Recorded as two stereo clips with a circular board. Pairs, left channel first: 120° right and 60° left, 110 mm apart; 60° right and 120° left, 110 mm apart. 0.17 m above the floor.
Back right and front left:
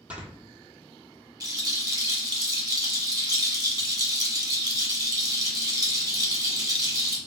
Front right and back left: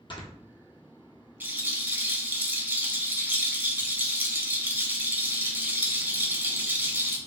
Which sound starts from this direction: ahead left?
A rattle, at 1.4 s.